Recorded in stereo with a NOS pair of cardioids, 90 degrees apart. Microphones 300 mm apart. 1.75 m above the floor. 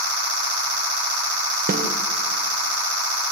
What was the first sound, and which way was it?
A snare drum, 30° right.